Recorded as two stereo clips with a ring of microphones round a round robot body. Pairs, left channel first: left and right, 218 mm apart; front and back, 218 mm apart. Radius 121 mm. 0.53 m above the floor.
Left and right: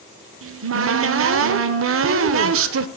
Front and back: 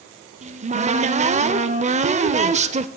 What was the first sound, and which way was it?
A cupboard door, 120° right.